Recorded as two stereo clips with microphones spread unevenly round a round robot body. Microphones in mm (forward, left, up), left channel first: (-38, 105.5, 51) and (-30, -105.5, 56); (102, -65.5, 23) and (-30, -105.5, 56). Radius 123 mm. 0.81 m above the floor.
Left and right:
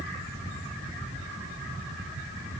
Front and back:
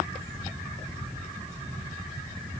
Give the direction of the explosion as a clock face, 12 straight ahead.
No explosion in this recording.